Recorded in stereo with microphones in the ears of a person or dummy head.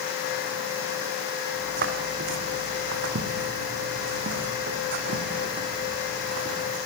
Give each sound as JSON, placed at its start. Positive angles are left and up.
{"t": 1.5, "sound": "footsteps", "side_deg": -55, "distance_m": 5.0}